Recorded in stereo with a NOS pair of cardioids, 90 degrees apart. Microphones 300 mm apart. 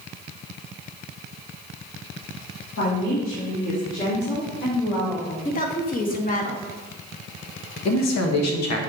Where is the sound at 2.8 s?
55° left, 1.7 m; by 5.5 s 30° left, 5.5 m.